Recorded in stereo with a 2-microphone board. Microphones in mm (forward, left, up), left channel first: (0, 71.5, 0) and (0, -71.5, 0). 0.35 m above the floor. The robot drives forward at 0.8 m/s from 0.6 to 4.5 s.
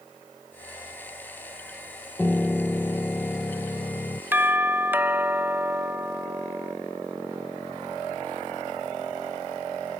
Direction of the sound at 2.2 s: 10° left (ahead or behind).